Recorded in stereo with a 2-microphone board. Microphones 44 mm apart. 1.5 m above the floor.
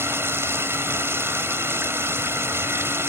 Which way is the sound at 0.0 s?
75° right (ahead or behind).